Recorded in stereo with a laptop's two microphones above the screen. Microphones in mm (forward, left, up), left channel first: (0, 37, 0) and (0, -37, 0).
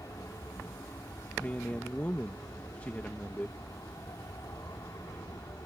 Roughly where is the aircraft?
Left.